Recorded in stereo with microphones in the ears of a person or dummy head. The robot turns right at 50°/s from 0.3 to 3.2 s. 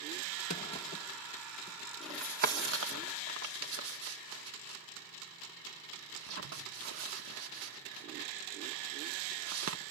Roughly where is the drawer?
Left.